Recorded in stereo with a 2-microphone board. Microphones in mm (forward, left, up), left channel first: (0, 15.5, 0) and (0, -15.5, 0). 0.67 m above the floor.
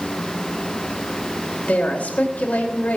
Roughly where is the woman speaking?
Left.